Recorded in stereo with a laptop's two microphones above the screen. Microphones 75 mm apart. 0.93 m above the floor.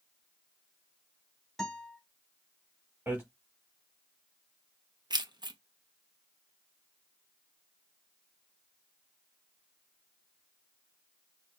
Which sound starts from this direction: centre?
A guitar, at 1.6 s.